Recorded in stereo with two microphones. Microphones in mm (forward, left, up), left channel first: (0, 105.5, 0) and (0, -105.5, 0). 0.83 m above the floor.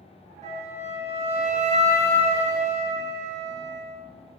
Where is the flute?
30° right (ahead or behind), 0.8 m.